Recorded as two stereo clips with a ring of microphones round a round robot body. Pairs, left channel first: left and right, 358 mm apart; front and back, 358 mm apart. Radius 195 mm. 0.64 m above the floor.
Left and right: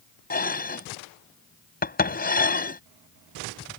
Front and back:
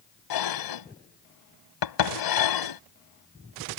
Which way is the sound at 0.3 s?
25° left.